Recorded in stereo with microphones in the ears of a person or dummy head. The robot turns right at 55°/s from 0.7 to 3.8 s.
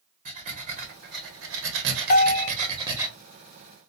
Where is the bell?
50° left (ahead or behind), 1.0 m; by 2.5 s 30° left (ahead or behind), 1.0 m.